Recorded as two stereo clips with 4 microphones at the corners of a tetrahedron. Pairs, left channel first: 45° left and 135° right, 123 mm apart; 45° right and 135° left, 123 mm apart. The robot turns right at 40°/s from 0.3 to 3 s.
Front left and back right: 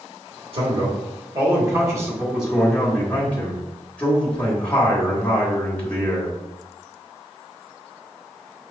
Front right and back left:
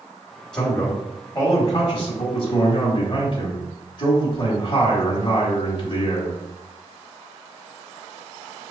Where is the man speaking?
130° right, 1.3 m; by 6.4 s 30° right, 1.3 m.